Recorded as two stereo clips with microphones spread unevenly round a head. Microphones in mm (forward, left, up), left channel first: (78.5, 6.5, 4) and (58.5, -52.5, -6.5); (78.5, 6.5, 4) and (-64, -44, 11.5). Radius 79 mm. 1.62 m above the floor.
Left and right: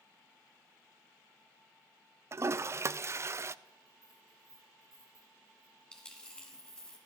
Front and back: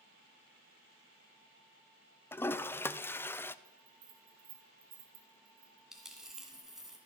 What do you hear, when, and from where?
2.3 s a toilet flushing: 60° right, 0.6 m
3.6 s a bell: 160° left, 1.9 m
5.9 s a dropped coin: 120° left, 1.7 m